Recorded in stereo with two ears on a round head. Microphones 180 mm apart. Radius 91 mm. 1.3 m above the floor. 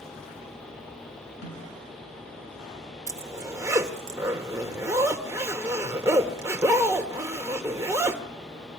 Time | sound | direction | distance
1.4 | a snare drum | 60° left (ahead or behind) | 9 m
3.1 | a zipper | 15° right (ahead or behind) | 1.3 m